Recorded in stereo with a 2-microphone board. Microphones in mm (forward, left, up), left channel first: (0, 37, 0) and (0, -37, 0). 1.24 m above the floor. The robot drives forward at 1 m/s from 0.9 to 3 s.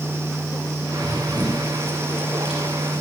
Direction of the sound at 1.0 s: 75° right (ahead or behind).